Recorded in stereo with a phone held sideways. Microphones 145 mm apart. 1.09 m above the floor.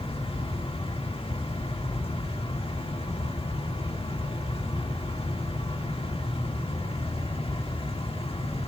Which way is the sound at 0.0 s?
40° left (ahead or behind).